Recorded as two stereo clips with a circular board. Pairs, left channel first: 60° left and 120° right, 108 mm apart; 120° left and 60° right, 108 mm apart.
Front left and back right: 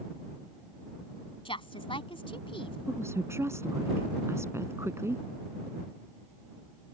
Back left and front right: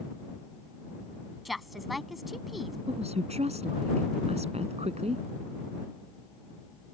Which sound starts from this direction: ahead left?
A woman speaking, at 1.4 s.